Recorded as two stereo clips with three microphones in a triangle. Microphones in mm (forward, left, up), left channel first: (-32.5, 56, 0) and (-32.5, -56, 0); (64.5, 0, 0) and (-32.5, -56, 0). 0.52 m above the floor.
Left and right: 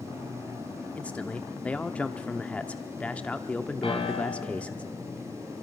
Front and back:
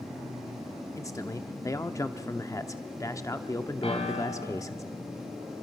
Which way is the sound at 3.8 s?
55° left.